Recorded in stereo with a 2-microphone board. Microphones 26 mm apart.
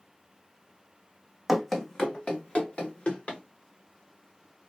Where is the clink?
No clink in this recording.